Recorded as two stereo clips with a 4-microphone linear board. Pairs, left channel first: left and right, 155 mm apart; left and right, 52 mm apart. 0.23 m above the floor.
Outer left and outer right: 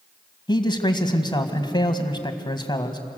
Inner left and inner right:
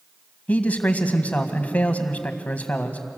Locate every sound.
0.5 s a man speaking: 30° left (ahead or behind), 1.8 m